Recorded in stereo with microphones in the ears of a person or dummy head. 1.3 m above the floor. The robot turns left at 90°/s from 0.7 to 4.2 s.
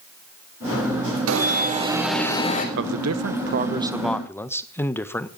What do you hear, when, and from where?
1.3 s an alarm: 95° right, 3.5 m; by 2.6 s 145° left, 3.5 m
2.8 s a man speaking: 50° right, 1.1 m; by 5.3 s 175° left, 1.1 m